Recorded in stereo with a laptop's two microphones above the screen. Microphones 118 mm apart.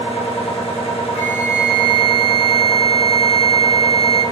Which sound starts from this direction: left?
A machine running, at 0.0 s.